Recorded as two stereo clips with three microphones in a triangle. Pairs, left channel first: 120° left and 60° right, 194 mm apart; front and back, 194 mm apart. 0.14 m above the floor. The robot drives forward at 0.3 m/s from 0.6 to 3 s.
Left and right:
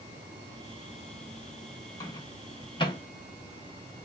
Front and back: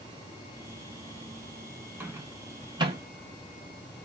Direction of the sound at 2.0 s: 125° left.